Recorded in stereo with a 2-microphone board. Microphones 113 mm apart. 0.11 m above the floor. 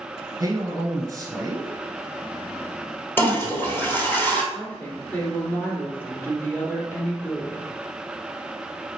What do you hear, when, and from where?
0.4 s a man speaking: 30° right (ahead or behind), 1.3 m
3.2 s a toilet flushing: 20° left (ahead or behind), 1.4 m
4.5 s a woman speaking: 15° left (ahead or behind), 1.7 m